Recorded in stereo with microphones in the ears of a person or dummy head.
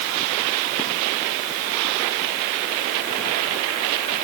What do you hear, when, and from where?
Only background noise.